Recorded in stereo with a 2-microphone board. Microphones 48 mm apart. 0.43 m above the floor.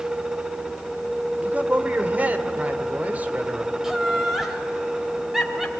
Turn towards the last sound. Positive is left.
turn(degrees=-10)  # may be behind; listen again after turning